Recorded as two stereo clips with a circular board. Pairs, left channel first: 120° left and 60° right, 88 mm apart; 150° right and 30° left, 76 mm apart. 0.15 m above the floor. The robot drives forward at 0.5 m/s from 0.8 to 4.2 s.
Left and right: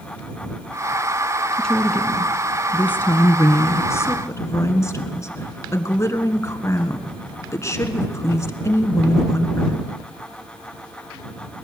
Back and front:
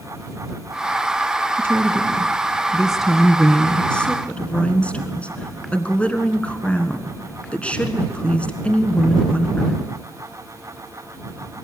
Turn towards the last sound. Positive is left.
turn(degrees=145)